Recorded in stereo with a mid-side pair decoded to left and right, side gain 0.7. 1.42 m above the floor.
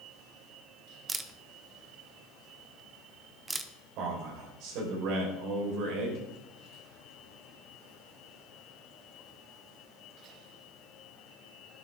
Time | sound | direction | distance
1.1 | a camera shutter | 20° right | 1.0 m
4.0 | a man speaking | 65° right | 5.5 m